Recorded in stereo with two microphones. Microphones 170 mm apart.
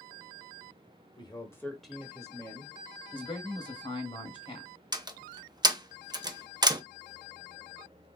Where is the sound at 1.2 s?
30° left (ahead or behind), 1.1 m; by 2.8 s 35° right (ahead or behind), 1.2 m.